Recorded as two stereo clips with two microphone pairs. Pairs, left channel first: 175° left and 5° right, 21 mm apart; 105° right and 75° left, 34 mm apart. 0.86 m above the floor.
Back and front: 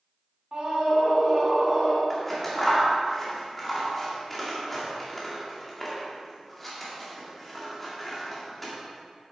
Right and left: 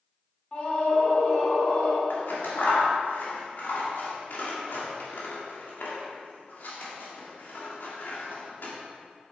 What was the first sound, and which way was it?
A scream, 50° right.